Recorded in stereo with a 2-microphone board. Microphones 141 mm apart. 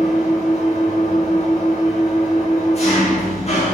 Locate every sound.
0.0 s an engine running: 50° left (ahead or behind), 5.5 m